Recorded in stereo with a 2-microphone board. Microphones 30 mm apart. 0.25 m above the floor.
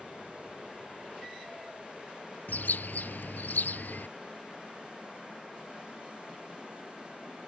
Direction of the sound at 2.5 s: 85° left.